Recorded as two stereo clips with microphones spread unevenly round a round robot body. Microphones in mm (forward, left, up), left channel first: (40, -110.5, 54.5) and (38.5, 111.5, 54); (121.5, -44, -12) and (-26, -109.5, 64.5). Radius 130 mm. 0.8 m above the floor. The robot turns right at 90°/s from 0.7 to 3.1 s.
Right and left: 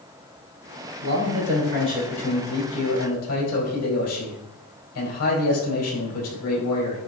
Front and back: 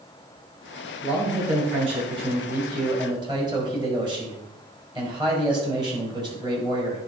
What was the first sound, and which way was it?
A man speaking, 85° left.